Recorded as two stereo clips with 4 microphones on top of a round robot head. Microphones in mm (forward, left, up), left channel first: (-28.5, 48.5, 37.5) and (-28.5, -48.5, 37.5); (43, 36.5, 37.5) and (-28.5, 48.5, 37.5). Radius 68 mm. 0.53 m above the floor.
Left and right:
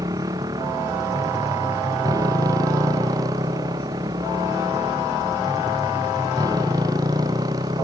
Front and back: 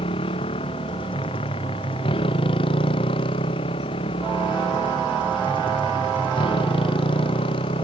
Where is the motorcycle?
25° right; by 7.9 s 30° right.